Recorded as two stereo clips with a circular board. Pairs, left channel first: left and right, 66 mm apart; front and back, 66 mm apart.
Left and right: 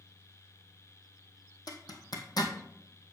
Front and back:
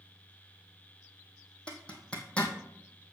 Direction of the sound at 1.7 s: 75° left.